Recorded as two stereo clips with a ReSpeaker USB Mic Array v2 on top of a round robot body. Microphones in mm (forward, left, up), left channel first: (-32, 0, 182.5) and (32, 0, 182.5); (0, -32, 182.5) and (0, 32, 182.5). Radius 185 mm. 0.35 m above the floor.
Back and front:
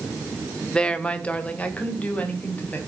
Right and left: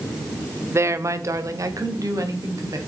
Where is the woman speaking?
110° left, 1.2 m; by 2.8 s 115° left, 3.5 m.